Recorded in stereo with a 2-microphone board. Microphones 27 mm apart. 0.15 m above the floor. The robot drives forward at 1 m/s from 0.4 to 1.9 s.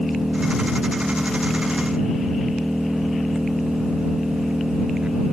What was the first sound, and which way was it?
An engine running, 35° right (ahead or behind).